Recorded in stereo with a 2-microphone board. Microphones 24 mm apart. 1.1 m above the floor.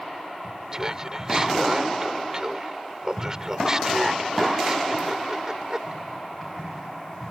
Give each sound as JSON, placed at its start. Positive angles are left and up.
{"t": 0.7, "sound": "laughter", "side_deg": -25}